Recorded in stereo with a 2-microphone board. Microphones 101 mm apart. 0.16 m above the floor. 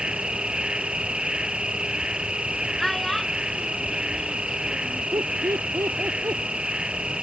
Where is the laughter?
35° right (ahead or behind).